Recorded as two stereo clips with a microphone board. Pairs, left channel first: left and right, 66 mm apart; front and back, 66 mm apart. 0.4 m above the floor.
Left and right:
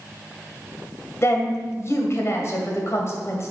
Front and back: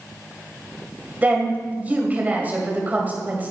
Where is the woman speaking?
120° left, 2 m.